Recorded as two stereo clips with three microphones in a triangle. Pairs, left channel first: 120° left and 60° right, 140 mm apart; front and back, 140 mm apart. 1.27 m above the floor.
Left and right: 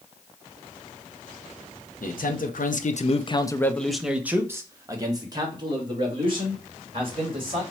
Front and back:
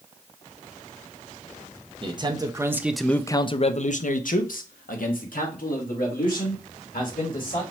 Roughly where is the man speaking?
Behind left.